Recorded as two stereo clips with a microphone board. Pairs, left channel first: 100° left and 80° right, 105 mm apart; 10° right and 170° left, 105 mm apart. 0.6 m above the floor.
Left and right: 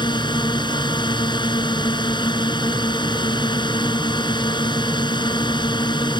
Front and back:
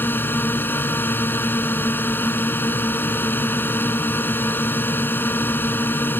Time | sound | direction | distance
0.0 | a drone | 60° left | ?